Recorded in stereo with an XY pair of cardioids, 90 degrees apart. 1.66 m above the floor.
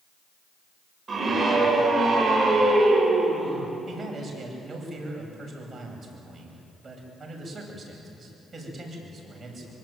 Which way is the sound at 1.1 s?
40° right.